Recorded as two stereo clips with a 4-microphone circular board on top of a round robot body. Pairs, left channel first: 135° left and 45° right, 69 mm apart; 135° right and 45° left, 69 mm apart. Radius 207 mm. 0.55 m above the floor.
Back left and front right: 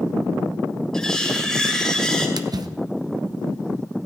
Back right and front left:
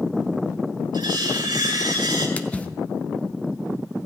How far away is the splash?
About 0.8 m.